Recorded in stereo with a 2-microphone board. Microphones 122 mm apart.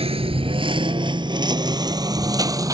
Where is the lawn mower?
55° right (ahead or behind); by 2.8 s 30° right (ahead or behind).